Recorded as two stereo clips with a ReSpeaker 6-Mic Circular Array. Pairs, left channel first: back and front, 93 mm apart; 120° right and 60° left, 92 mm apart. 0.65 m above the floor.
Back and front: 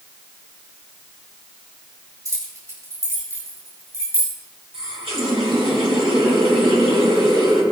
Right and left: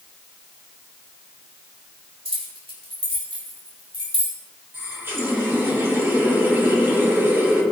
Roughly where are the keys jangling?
Ahead left.